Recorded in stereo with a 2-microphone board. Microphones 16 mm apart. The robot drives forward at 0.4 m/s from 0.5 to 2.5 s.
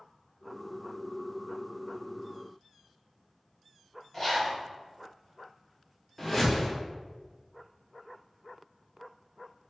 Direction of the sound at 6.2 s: 20° left (ahead or behind).